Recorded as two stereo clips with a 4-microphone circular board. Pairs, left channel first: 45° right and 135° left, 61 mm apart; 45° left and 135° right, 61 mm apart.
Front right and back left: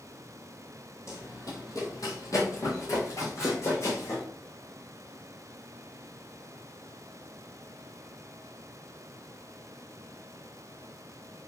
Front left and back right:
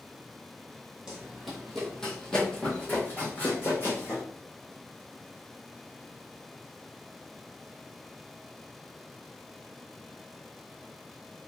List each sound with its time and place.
1.1 s running footsteps: 55° right, 1.3 m; by 4.2 s 5° right, 2 m